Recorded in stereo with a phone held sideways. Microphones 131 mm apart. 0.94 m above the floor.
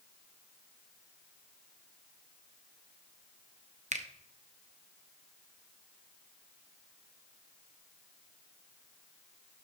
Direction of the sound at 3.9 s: 65° right (ahead or behind).